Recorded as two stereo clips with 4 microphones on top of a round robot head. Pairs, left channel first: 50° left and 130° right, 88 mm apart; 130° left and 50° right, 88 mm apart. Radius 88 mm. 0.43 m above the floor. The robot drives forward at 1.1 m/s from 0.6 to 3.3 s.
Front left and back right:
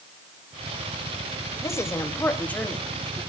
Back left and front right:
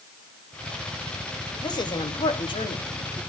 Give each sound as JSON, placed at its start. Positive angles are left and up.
{"t": 1.6, "sound": "a woman speaking", "azimuth_deg": 100, "distance_m": 2.5}